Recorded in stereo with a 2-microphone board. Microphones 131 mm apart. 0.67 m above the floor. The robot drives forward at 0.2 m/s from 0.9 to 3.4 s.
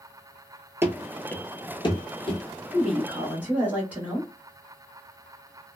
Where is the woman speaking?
10° right (ahead or behind), 1.0 m.